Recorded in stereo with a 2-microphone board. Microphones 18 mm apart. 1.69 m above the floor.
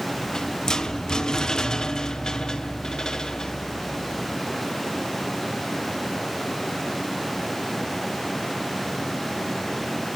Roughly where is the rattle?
Left.